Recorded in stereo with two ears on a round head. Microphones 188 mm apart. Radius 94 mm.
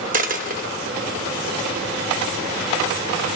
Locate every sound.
0.1 s a dropped coin: 40° right (ahead or behind), 0.6 m